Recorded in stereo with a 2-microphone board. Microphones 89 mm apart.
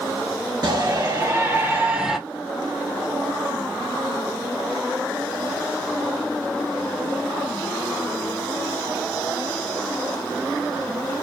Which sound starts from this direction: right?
A shout, at 0.6 s.